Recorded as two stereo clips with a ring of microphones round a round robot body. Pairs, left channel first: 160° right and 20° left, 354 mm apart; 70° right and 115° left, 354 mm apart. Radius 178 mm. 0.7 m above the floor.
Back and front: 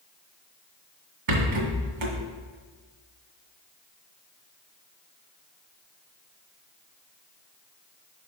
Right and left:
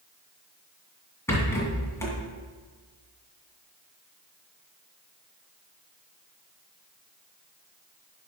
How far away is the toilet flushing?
No toilet flushing in this recording.